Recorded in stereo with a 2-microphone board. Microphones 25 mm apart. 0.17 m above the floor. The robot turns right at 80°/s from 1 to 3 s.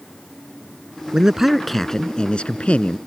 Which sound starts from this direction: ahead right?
A man speaking, at 1.1 s.